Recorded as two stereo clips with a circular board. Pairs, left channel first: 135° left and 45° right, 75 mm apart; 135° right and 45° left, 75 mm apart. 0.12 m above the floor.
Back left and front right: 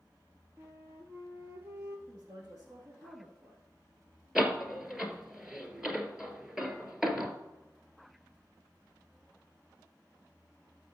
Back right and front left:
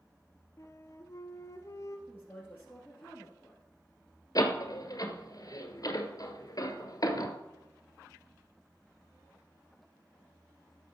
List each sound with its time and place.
0.6 s a flute: 95° right, 1.1 m
2.1 s a woman speaking: 75° right, 3 m
4.3 s a door slam: 125° right, 1.4 m